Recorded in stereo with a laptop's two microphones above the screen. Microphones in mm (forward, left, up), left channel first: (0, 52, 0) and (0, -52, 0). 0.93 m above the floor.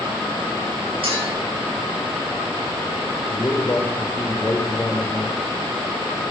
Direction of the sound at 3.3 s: 20° left (ahead or behind).